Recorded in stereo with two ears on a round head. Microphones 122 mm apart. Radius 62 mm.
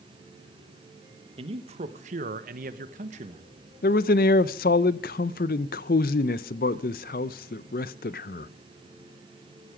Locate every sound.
1.4 s a man speaking: 45° right (ahead or behind), 1.5 m; by 3.5 s 40° right (ahead or behind), 1.3 m
3.8 s a man speaking: 70° left (ahead or behind), 0.6 m